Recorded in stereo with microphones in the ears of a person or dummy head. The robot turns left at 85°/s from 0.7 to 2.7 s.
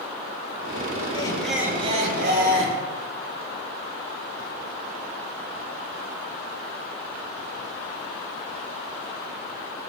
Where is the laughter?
30° left, 5.5 m; by 2.8 s 100° right, 5.5 m.